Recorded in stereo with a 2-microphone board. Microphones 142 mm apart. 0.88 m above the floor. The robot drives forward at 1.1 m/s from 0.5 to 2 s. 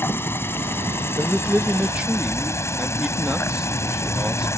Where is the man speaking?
15° right (ahead or behind); by 4.5 s 10° right (ahead or behind).